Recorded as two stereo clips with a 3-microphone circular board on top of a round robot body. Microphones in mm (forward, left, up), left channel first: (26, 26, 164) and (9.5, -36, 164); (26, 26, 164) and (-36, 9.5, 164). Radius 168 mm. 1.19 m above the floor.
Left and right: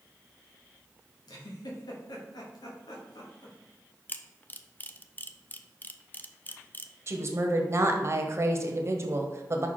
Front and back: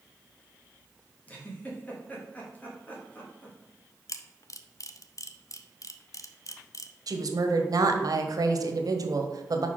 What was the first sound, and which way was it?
A giggle, 80° left.